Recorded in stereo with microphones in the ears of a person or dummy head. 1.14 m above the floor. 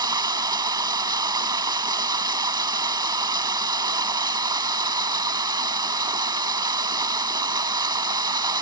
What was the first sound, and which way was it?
Running water, 20° right (ahead or behind).